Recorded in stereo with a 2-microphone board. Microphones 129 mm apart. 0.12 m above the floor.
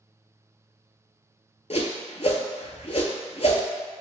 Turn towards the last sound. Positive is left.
turn(degrees=55)  # may be behind; listen again after turning